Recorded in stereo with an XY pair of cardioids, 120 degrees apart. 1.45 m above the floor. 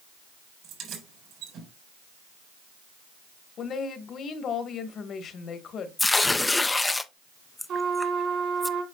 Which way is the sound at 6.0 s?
15° left.